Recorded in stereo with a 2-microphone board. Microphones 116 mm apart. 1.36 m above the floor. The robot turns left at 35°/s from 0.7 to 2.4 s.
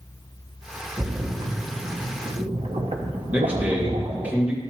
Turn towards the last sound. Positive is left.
turn(degrees=-15)  # may be behind; listen again after turning